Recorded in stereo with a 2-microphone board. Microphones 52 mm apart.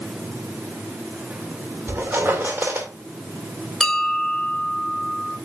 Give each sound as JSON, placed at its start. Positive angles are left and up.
{"t": 1.9, "sound": "a squeak", "side_deg": -35, "distance_m": 2.0}
{"t": 3.8, "sound": "a bell", "side_deg": 5, "distance_m": 1.5}